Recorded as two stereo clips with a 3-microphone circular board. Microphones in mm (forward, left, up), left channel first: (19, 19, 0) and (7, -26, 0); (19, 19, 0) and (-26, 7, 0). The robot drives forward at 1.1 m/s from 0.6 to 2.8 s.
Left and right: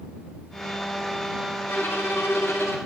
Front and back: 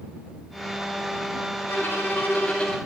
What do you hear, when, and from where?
1.7 s a violin: 45° left, 2 m; by 2.8 s 80° left, 1.6 m